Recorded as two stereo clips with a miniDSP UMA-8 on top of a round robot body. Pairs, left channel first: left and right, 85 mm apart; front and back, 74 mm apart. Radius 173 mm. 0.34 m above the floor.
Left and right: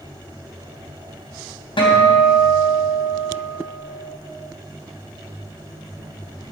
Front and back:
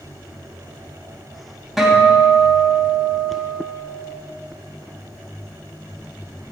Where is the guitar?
90° left, 3 m.